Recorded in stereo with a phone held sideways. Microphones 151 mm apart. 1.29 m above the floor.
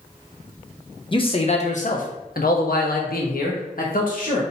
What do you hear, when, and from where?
1.1 s a man speaking: 35° left (ahead or behind), 0.9 m; by 4.4 s 60° left (ahead or behind), 1.6 m